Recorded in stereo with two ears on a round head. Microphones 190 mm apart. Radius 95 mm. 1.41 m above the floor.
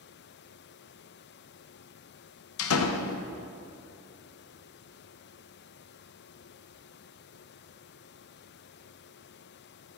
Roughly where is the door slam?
Left.